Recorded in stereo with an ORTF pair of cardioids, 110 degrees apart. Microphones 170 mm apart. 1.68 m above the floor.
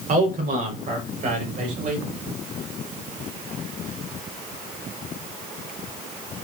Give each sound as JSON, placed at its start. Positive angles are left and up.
{"t": 0.1, "sound": "a man speaking", "azimuth_deg": -50, "distance_m": 6.5}